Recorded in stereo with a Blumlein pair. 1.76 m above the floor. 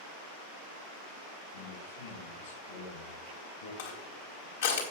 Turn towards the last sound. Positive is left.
turn(degrees=65)